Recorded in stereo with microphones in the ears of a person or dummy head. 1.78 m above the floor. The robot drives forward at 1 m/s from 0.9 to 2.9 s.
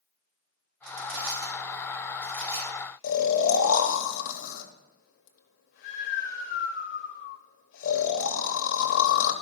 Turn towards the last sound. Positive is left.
turn(degrees=60)  # may be behind; listen again after turning